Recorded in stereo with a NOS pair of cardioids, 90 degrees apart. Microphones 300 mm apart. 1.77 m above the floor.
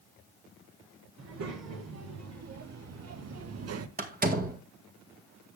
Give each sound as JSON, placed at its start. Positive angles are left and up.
{"t": 1.2, "sound": "a child speaking", "azimuth_deg": -60, "distance_m": 4.0}
{"t": 4.0, "sound": "a door slam", "azimuth_deg": -30, "distance_m": 2.0}